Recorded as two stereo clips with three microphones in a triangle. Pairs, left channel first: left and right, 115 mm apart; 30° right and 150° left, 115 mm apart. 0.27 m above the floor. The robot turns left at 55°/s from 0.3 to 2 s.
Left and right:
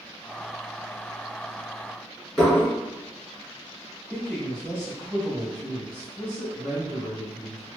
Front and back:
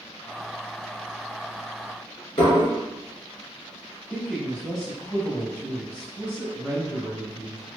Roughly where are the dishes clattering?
Ahead.